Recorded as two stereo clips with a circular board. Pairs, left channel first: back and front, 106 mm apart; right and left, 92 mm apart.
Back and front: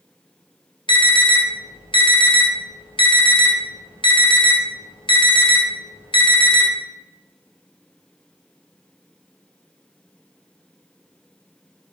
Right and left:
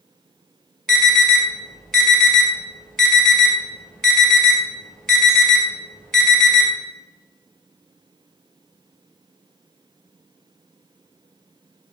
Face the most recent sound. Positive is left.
turn(degrees=-175)